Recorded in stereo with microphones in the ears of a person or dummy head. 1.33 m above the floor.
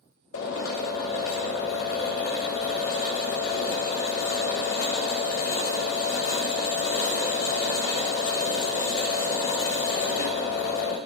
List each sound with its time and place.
0.3 s a drill: 45° left (ahead or behind), 1.1 m